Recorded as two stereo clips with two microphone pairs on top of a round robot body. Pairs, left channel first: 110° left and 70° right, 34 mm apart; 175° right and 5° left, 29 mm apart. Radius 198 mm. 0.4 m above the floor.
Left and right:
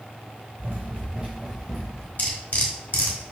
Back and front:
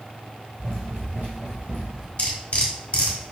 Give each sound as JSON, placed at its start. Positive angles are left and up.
{"t": 0.6, "sound": "running footsteps", "azimuth_deg": -45, "distance_m": 0.8}
{"t": 2.2, "sound": "cutlery clinking", "azimuth_deg": 135, "distance_m": 1.5}